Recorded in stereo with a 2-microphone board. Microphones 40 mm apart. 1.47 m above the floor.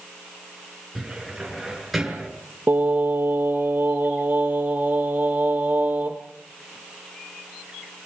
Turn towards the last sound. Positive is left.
turn(degrees=-50)  # may be behind; listen again after turning